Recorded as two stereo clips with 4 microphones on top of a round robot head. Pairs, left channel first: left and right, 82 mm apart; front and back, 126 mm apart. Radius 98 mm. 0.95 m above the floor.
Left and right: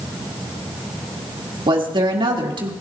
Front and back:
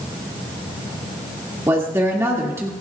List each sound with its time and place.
1.7 s a woman speaking: 105° right, 2 m